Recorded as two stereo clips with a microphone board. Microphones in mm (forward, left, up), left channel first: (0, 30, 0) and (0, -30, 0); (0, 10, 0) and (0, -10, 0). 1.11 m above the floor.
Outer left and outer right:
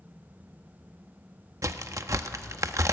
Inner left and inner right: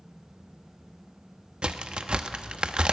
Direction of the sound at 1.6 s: 55° right (ahead or behind).